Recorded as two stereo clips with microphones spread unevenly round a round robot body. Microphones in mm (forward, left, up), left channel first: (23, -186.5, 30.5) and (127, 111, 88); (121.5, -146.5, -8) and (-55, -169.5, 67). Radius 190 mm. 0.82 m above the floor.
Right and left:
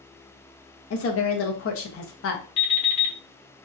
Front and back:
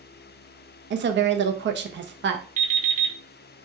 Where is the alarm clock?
125° right, 1.3 m.